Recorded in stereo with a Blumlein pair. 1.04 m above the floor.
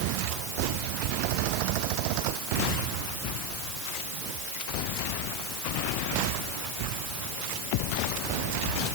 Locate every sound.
Only background noise.